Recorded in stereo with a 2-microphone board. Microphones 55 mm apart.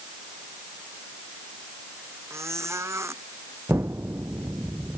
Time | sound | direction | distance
2.3 | a squeak | 55° right (ahead or behind) | ?
3.7 | an explosion | 50° right (ahead or behind) | ?